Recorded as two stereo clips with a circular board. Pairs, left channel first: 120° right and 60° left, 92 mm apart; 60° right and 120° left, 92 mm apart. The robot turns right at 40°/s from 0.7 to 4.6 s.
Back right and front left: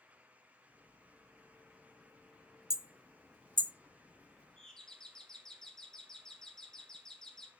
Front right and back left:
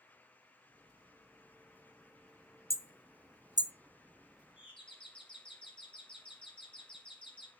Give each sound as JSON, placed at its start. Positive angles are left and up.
{"t": 2.7, "sound": "hammering", "azimuth_deg": 85, "distance_m": 0.6}
{"t": 4.6, "sound": "a doorbell", "azimuth_deg": -40, "distance_m": 2.5}